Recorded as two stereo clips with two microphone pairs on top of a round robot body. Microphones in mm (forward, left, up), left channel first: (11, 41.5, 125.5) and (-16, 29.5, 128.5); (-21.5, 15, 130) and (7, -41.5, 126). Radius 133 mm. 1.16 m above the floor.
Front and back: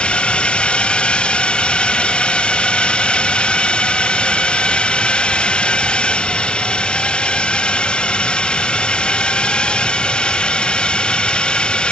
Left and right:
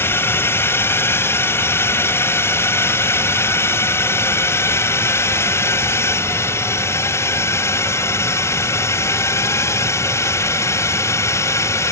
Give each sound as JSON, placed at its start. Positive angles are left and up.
{"t": 0.0, "sound": "a drone", "azimuth_deg": 70}